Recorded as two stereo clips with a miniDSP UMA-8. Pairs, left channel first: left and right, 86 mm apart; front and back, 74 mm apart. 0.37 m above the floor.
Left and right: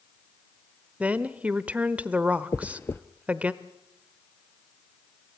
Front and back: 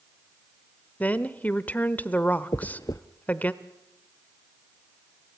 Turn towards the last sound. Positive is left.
turn(degrees=30)